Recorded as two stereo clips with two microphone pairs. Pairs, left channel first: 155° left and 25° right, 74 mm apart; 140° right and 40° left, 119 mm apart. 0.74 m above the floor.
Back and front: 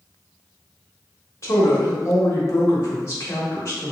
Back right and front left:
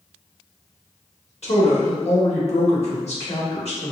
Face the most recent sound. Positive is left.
turn(degrees=-160)